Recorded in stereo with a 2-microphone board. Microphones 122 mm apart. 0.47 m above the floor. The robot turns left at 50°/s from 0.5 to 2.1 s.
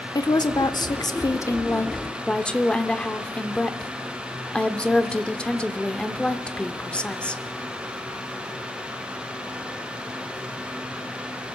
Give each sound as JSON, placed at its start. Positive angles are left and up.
{"t": 0.1, "sound": "a woman speaking", "azimuth_deg": 95, "distance_m": 0.9}